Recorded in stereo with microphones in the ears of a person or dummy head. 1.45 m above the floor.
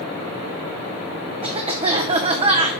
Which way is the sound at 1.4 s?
25° right (ahead or behind).